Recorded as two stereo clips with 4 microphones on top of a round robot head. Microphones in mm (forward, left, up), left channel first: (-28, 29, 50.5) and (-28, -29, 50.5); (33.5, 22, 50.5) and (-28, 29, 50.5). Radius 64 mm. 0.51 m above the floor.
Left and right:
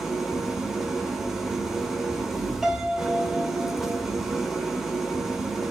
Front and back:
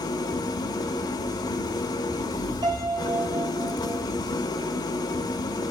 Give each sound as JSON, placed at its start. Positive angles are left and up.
{"t": 0.0, "sound": "an engine running", "azimuth_deg": -5, "distance_m": 0.8}
{"t": 2.6, "sound": "a piano", "azimuth_deg": -170, "distance_m": 1.9}